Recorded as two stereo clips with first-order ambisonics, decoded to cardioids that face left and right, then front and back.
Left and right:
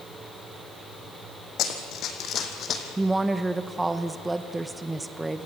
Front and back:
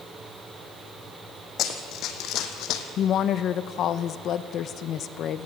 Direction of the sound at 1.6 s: 50° left.